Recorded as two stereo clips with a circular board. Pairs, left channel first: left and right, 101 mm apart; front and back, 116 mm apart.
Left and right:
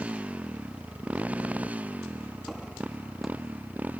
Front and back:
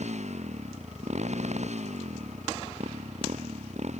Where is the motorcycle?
165° right.